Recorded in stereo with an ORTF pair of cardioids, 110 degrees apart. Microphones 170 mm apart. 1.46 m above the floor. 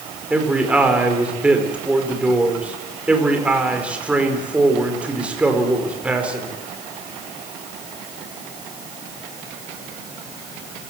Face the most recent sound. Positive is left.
turn(degrees=-5)